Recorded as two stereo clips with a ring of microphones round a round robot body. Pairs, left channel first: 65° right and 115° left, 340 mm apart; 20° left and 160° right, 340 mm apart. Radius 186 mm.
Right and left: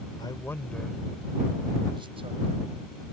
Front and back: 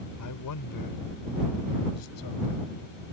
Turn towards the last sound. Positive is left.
turn(degrees=45)